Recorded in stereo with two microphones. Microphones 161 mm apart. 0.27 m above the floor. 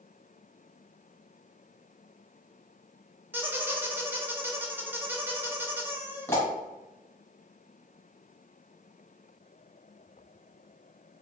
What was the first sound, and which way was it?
A squeak, 15° right (ahead or behind).